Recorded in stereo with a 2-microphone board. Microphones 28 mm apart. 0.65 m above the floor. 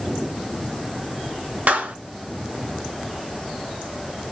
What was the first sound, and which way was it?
A clap, 65° right (ahead or behind).